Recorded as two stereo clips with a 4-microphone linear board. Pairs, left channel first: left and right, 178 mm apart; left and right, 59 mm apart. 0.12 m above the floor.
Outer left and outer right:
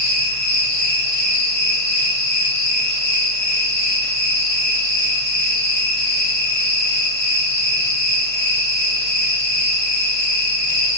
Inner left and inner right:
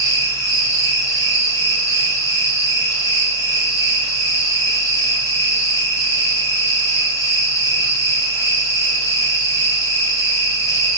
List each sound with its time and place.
0.0 s an insect: 65° left (ahead or behind), 1.5 m